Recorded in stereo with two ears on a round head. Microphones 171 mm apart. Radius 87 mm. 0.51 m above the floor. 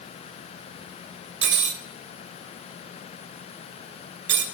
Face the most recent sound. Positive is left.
turn(degrees=-60)  # may be behind; listen again after turning